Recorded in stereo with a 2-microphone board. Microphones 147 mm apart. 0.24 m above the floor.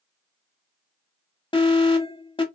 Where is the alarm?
35° left (ahead or behind), 0.8 m.